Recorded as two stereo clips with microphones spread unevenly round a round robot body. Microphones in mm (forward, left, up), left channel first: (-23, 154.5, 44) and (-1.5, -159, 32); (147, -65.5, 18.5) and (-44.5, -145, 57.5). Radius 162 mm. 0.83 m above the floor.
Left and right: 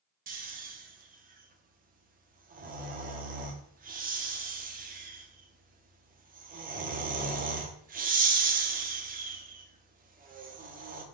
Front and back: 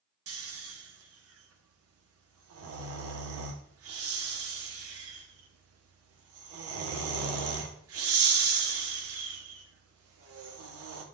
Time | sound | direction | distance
0.3 | snoring | 150° right | 1.0 m